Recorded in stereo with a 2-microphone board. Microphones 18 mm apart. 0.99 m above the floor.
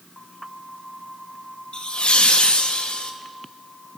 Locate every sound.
1.7 s laughter: 70° left (ahead or behind), 0.8 m; by 3.1 s 65° left (ahead or behind), 1.2 m